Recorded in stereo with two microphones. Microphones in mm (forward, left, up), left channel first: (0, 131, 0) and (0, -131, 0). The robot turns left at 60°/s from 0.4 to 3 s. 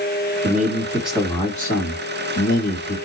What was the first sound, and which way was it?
A man speaking, 140° right.